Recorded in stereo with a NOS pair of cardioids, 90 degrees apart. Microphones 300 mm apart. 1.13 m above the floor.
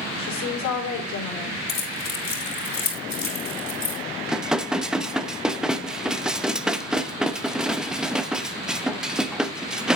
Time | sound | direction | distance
0.2 | a woman speaking | 65° left | 4 m
1.7 | keys jangling | 40° left | 5 m
4.3 | dishes clattering | straight ahead | 0.8 m